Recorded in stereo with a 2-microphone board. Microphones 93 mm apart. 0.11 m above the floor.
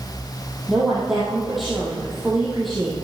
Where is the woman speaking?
Centre (ahead or behind), 3 m.